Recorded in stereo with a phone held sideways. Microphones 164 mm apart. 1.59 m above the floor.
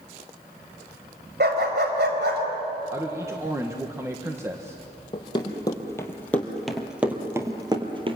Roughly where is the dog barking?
Right.